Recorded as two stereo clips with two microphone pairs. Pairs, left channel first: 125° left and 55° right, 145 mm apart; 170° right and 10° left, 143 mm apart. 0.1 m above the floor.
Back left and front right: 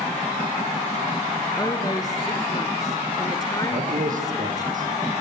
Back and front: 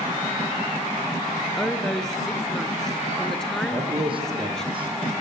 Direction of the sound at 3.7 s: 40° right.